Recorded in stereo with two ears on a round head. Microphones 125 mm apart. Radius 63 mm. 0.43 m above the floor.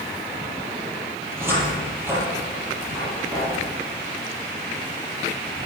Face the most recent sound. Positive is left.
turn(degrees=-20)  # may be behind; listen again after turning